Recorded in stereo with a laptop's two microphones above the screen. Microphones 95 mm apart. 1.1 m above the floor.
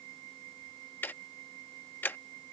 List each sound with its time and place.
1.0 s ticking: 20° left (ahead or behind)